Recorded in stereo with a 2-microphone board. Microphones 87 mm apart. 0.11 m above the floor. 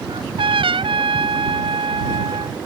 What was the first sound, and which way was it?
A trumpet, 80° right.